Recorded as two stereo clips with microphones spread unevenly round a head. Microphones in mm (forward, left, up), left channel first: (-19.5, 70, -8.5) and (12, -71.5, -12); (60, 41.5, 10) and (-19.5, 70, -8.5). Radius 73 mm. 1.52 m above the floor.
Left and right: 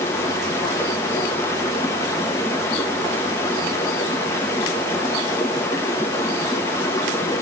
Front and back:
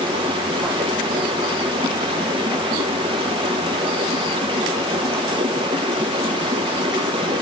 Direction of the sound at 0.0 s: 170° left.